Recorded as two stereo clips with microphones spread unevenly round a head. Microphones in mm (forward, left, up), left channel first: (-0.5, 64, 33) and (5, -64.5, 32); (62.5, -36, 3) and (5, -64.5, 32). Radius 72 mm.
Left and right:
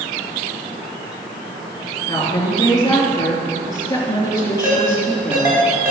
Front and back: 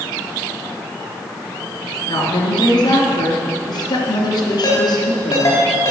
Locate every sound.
2.1 s a woman speaking: 25° left, 3 m
4.6 s a ringtone: 15° right, 4.5 m